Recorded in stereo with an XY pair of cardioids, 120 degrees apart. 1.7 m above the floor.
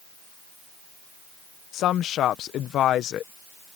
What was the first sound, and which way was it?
A woman speaking, 65° left.